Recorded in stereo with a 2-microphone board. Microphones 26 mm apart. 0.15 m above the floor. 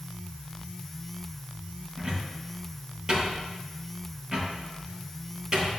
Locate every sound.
2.0 s a cupboard door: 25° right (ahead or behind), 3.5 m